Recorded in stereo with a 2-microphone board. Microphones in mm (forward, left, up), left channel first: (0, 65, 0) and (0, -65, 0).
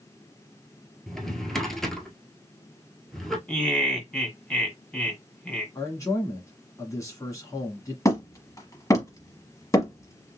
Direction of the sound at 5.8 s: 25° left (ahead or behind).